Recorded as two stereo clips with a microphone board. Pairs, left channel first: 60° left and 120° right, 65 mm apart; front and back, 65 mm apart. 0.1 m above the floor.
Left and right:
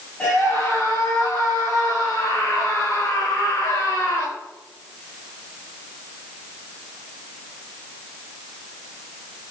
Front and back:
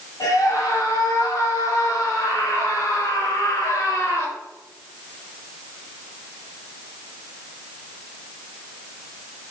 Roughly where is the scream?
Ahead.